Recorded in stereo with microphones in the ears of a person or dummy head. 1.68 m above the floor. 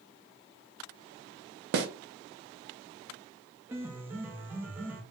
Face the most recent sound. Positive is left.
turn(degrees=-10)  # may be behind; listen again after turning